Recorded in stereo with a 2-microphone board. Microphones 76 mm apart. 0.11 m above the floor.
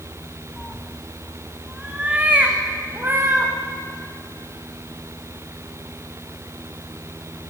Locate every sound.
0.6 s a cat meowing: 10° left (ahead or behind), 2.5 m; by 3.5 s 30° right (ahead or behind), 4.5 m